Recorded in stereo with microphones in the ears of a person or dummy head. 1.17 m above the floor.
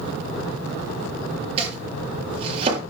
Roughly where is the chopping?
Right.